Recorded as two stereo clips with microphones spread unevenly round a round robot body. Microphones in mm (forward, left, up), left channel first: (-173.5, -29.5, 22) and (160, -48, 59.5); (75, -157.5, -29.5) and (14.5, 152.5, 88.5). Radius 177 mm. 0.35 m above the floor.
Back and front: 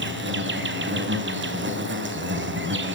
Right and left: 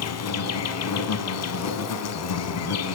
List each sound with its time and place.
0.0 s an insect: 60° right, 3.5 m